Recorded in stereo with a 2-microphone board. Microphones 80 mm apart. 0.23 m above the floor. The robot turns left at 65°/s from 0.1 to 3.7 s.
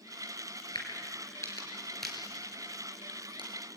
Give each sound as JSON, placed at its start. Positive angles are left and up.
{"t": 0.8, "sound": "a crack", "side_deg": 75, "distance_m": 4.5}